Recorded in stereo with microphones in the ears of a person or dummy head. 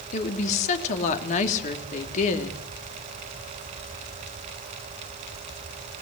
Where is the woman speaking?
45° left (ahead or behind), 3 m.